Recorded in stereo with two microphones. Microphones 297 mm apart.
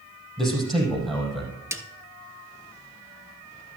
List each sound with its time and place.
0.4 s a man speaking: centre (ahead or behind), 5 m
1.7 s a snare drum: 10° right (ahead or behind), 0.9 m